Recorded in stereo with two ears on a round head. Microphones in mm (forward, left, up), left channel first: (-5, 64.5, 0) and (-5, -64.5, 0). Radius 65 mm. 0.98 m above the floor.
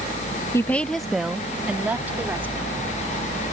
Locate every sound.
0.5 s a woman speaking: 20° left (ahead or behind); by 2.8 s 15° right (ahead or behind)